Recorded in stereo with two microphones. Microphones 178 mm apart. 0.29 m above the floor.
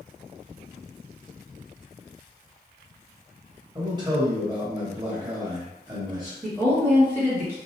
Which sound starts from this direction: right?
A man speaking, at 3.8 s.